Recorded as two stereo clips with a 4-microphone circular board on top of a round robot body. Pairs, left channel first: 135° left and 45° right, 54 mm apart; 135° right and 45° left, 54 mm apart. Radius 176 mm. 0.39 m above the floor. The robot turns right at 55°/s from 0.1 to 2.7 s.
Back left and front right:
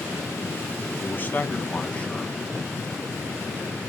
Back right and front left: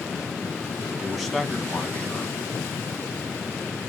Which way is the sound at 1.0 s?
125° left.